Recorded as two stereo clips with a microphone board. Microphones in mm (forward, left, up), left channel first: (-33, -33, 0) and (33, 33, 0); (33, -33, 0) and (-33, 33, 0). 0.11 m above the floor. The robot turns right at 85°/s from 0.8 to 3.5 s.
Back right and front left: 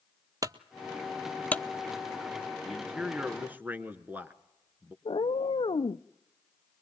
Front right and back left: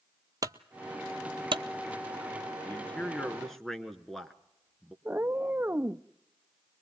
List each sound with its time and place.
0.4 s a clunk: 90° left, 0.6 m; by 1.6 s 160° left, 0.6 m
2.6 s a man speaking: 35° right, 1.1 m; by 5.0 s 35° left, 1.1 m
5.0 s a cat meowing: 155° right, 0.6 m